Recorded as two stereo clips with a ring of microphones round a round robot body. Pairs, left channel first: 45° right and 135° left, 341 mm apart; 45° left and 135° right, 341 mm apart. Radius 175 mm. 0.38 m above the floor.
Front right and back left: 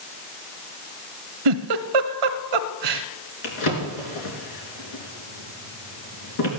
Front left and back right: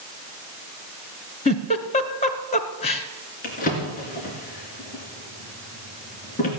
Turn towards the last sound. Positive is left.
turn(degrees=-20)